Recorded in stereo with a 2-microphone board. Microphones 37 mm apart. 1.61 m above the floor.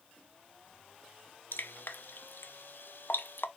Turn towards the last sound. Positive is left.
turn(degrees=70)  # may be behind; listen again after turning